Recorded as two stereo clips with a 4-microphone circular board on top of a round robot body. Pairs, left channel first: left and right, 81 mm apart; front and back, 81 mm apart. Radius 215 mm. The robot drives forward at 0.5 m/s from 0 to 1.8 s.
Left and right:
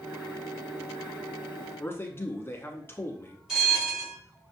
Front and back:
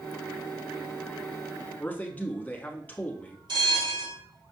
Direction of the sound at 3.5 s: 175° right.